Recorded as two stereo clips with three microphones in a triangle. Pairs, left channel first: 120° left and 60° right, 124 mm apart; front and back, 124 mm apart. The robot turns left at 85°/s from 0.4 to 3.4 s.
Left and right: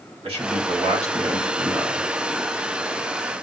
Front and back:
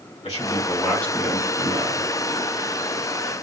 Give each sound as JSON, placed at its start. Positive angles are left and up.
{"t": 0.2, "sound": "a man speaking", "azimuth_deg": -25, "distance_m": 2.5}